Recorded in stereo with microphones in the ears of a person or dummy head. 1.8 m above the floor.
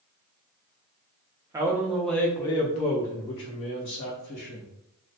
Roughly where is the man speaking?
Centre.